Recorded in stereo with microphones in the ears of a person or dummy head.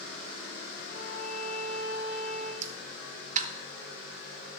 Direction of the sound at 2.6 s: 40° right (ahead or behind).